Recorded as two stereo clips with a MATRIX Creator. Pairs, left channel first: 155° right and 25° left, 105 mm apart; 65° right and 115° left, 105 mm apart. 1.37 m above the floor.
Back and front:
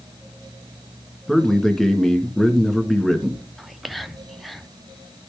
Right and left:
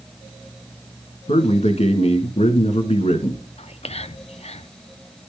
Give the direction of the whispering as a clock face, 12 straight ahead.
2 o'clock.